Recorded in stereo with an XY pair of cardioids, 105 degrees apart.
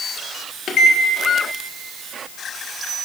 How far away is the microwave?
About 1.3 m.